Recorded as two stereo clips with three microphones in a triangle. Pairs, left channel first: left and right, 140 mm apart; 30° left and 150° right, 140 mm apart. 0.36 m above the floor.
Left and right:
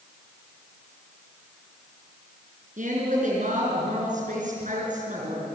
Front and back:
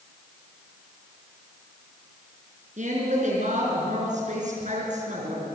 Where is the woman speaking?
120° right, 6 m.